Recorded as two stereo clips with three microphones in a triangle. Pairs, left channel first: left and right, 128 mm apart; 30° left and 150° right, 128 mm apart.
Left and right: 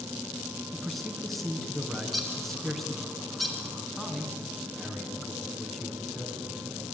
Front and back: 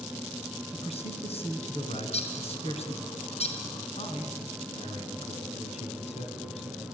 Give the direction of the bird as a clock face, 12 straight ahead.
12 o'clock.